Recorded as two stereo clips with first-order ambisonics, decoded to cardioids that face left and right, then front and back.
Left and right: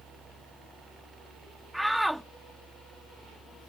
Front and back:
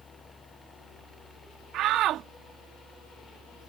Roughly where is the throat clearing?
I don't hear throat clearing.